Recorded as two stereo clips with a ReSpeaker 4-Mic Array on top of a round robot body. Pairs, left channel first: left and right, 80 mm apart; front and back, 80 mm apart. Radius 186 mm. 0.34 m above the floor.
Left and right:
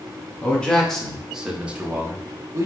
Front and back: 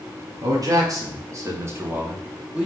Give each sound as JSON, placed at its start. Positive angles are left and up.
{"t": 0.4, "sound": "a man speaking", "azimuth_deg": 160, "distance_m": 1.5}